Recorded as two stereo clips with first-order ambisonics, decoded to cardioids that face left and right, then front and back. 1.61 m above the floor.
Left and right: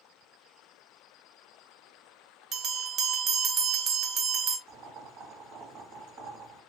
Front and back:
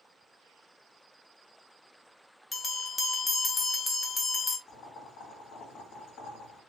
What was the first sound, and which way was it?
A bell, 65° right.